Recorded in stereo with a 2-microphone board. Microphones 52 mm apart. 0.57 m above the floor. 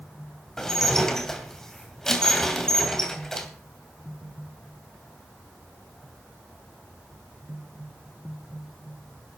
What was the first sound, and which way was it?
Dishes clattering, 10° left (ahead or behind).